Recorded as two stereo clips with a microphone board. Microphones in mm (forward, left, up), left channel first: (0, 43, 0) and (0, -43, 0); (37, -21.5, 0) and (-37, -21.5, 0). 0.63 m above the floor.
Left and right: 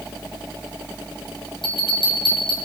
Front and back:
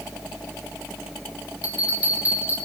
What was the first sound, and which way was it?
A bell, 110° left.